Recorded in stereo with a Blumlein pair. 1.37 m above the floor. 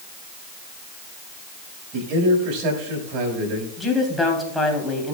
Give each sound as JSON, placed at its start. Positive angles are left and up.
{"t": 1.9, "sound": "a man speaking", "azimuth_deg": -35, "distance_m": 5.5}
{"t": 3.8, "sound": "a woman speaking", "azimuth_deg": 5, "distance_m": 3.5}